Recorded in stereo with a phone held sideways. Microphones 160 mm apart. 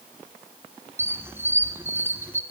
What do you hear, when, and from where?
1.0 s a squeak: 15° right (ahead or behind), 1.4 m